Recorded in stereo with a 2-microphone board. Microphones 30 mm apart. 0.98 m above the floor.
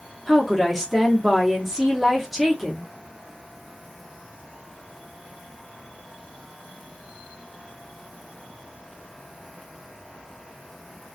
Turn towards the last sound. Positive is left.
turn(degrees=-5)  # may be behind; listen again after turning